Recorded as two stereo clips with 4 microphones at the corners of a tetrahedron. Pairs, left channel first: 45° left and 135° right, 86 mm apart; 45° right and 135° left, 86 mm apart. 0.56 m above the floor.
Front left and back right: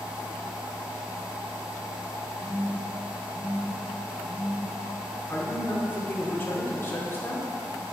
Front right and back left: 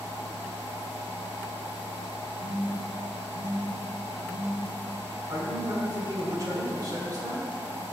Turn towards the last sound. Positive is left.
turn(degrees=105)